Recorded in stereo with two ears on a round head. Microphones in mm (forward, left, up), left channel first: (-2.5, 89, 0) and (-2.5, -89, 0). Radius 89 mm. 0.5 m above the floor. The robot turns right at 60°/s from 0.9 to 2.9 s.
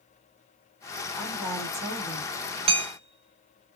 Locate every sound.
1.2 s a woman speaking: 170° left, 1.7 m; by 2.3 s 125° right, 1.7 m
2.7 s hammering: 30° right (ahead or behind), 0.5 m; by 3.8 s 35° right (ahead or behind), 0.5 m